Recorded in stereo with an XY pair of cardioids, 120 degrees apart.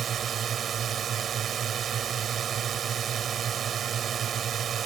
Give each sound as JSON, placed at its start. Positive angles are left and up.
{"t": 0.0, "sound": "a drone", "azimuth_deg": -45}